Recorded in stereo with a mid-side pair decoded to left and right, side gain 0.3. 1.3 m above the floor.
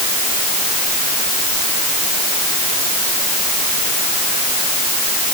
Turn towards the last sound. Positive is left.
No sound to turn to.